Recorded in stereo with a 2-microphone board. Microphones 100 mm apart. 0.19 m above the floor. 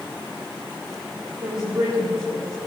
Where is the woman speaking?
50° right (ahead or behind), 5 m; by 2.6 s 35° right (ahead or behind), 6 m.